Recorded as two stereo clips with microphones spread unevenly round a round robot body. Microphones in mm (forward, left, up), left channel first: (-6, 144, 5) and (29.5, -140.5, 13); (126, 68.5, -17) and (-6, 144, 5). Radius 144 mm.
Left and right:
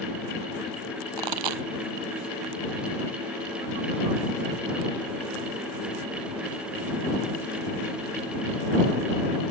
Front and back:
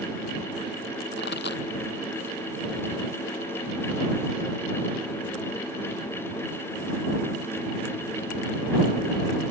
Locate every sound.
1.2 s a pop: 80° right